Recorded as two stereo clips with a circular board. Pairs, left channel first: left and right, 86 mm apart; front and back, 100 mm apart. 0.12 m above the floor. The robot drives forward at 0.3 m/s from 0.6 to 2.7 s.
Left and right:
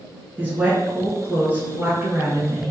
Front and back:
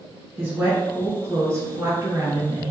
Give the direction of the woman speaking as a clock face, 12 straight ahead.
5 o'clock.